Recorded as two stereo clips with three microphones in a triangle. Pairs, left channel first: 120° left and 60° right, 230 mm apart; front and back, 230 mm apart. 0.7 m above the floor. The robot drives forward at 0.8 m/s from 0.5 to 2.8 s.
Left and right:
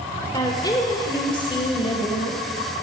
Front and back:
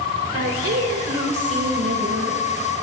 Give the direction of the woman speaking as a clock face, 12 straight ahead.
6 o'clock.